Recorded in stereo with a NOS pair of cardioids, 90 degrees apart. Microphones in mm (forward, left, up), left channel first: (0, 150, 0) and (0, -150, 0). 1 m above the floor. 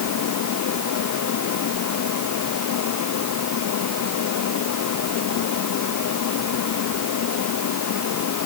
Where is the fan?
70° left.